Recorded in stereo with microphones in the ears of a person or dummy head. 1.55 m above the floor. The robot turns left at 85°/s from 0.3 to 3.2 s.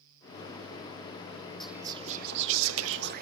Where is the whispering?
Straight ahead, 0.5 m; by 3.2 s 135° right, 0.5 m.